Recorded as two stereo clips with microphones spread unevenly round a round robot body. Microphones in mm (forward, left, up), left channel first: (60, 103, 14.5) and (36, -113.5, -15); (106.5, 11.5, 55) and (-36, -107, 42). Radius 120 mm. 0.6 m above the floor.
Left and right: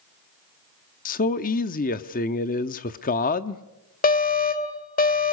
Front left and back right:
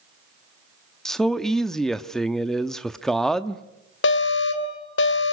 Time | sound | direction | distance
1.1 | a man speaking | 130° left | 0.8 m
4.0 | an alarm | 35° left | 3 m